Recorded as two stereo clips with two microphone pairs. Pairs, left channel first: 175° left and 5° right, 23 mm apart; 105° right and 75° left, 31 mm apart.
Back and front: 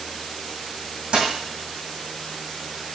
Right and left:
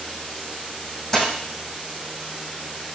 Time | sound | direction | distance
1.1 | a dropped coin | 35° right | 2.5 m